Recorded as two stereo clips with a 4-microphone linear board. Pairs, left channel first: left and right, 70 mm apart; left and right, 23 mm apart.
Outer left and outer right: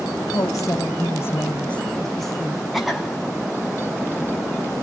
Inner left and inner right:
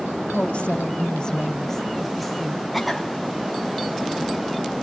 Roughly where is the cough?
Centre.